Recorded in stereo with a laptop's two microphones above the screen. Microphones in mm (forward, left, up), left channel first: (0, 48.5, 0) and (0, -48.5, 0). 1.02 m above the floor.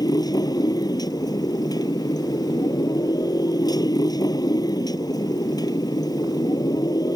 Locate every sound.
0.0 s a motorcycle: 40° left (ahead or behind)